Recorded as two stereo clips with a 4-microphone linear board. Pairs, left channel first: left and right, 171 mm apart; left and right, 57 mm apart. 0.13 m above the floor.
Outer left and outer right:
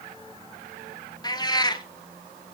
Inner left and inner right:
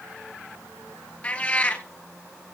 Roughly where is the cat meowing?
Left.